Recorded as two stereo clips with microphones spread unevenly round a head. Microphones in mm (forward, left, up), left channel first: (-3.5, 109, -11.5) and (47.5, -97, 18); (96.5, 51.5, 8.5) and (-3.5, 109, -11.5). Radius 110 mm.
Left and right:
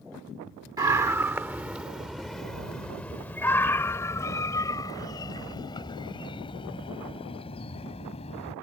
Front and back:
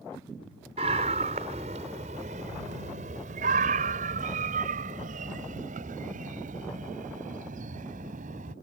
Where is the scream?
150° right; by 8.5 s 170° left.